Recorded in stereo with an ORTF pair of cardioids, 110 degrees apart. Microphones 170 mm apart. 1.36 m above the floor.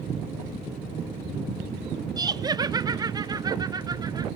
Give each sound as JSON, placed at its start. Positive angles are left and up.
{"t": 2.2, "sound": "laughter", "azimuth_deg": -25, "distance_m": 0.7}